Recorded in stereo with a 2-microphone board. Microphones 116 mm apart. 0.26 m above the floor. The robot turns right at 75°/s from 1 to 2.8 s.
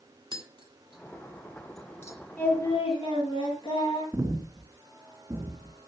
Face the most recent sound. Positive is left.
turn(degrees=-20)  # may be behind; listen again after turning